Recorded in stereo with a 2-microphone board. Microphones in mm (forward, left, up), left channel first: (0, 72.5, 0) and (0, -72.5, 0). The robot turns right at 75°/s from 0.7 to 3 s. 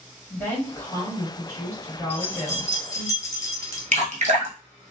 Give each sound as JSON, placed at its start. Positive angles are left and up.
{"t": 0.3, "sound": "a woman speaking", "side_deg": 15, "distance_m": 1.5}
{"t": 2.1, "sound": "keys jangling", "side_deg": 15, "distance_m": 1.0}
{"t": 3.9, "sound": "dripping", "side_deg": -60, "distance_m": 0.7}